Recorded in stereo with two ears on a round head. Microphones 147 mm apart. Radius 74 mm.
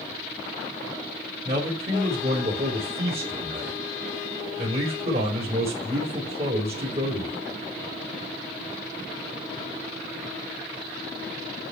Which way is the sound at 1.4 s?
35° right (ahead or behind).